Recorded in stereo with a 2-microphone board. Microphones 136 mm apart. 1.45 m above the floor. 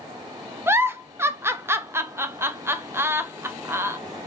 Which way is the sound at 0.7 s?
15° right (ahead or behind).